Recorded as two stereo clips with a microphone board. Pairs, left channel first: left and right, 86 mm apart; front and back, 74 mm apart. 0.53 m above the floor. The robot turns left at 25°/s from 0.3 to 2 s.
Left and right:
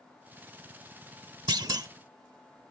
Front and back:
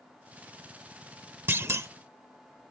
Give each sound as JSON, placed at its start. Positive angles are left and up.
{"t": 1.5, "sound": "a clunk", "azimuth_deg": -120}